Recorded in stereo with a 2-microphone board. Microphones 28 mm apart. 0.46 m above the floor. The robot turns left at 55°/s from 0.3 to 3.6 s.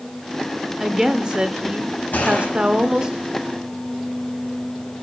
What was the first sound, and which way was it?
A woman speaking, 15° right.